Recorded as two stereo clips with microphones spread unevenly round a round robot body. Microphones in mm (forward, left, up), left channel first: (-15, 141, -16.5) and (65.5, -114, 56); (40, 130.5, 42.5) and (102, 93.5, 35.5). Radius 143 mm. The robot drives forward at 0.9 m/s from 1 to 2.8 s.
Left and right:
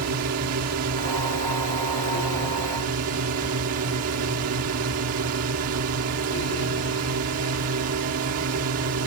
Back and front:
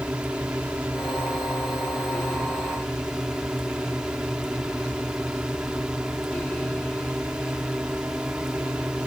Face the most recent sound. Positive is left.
turn(degrees=-110)